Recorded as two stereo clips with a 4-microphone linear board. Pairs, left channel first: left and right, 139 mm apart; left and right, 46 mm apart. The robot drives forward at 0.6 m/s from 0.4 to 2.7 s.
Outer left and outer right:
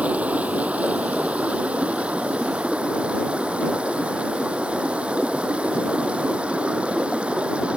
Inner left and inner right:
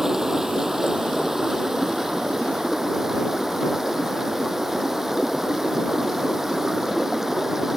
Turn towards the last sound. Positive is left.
turn(degrees=-5)  # may be behind; listen again after turning